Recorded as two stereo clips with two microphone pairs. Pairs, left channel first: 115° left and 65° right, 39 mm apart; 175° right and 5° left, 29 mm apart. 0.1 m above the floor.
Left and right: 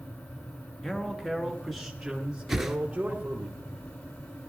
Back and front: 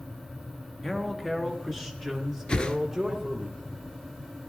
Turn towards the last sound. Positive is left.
turn(degrees=-150)